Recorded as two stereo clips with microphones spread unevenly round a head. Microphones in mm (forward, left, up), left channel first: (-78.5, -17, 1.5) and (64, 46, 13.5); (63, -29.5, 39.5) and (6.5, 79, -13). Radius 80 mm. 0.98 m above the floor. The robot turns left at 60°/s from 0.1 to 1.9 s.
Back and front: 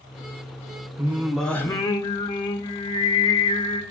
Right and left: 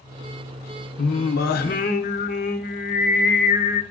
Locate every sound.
1.0 s singing: 45° right, 0.5 m; by 3.8 s 100° right, 0.5 m